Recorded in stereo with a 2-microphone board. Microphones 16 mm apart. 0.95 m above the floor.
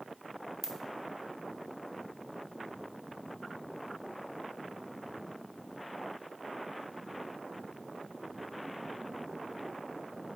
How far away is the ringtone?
About 0.5 m.